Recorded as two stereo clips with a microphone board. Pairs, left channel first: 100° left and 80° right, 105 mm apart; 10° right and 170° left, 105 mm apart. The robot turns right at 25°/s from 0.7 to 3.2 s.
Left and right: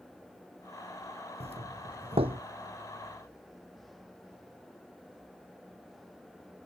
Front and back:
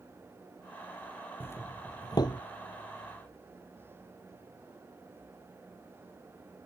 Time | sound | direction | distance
1.4 | a doorbell | 80° right | ?